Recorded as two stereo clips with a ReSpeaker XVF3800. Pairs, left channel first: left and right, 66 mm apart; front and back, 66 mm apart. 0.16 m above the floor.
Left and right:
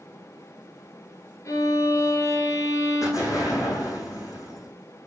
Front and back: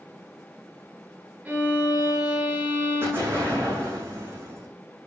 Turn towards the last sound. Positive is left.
turn(degrees=125)